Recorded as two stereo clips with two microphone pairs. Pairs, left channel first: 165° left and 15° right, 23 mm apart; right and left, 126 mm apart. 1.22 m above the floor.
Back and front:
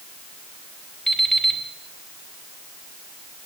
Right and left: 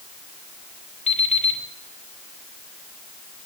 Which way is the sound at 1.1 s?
120° right.